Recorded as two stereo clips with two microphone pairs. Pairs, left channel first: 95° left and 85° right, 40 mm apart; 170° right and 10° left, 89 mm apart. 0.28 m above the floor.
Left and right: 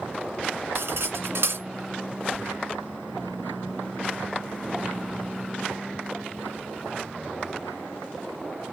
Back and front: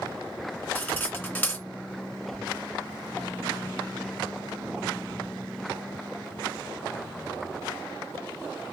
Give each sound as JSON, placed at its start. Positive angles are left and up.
{"t": 0.8, "sound": "cutlery clinking", "azimuth_deg": -100, "distance_m": 2.0}